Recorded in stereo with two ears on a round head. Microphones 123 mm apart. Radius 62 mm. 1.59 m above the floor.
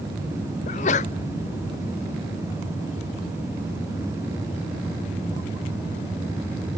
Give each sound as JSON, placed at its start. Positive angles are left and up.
{"t": 0.7, "sound": "a sneeze", "side_deg": 50, "distance_m": 0.5}